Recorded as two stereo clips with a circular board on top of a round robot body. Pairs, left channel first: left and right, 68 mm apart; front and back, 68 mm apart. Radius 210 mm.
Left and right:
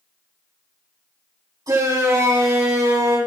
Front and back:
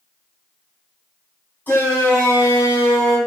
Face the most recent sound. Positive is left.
turn(degrees=-60)